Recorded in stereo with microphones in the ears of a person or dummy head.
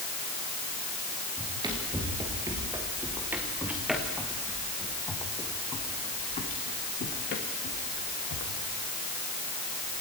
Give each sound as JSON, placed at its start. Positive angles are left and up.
{"t": 1.4, "sound": "running footsteps", "side_deg": -25, "distance_m": 6.5}